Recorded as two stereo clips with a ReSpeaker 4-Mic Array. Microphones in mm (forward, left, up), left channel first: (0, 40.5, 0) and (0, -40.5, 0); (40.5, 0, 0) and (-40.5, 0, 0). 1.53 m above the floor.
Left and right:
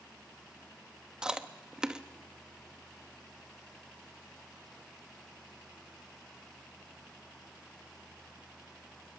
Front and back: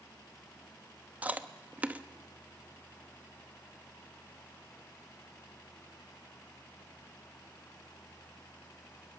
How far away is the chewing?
About 0.9 m.